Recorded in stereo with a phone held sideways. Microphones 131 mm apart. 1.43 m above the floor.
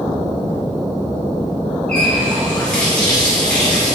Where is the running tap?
10° left (ahead or behind), 2.5 m.